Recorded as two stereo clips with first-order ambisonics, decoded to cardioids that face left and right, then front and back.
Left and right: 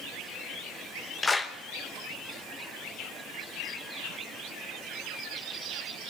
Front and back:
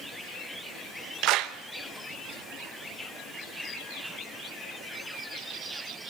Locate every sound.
1.2 s a clap: 165° left, 0.9 m